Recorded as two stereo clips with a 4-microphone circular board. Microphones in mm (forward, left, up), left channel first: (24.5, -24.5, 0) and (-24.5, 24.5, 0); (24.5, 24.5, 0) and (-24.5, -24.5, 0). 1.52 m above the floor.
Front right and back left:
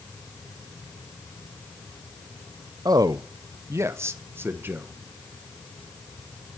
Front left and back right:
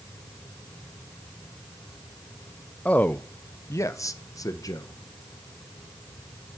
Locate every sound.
2.9 s a man speaking: 115° left, 0.6 m; by 5.0 s 75° left, 1.6 m